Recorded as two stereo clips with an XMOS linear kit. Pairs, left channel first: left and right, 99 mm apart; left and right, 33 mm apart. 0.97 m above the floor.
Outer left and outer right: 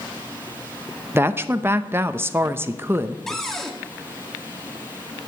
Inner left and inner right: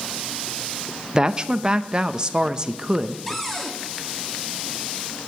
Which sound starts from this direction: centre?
A cupboard door, at 3.3 s.